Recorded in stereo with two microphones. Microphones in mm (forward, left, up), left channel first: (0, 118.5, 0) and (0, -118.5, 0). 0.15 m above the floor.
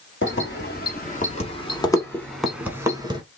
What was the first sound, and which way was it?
Keys jangling, 50° left (ahead or behind).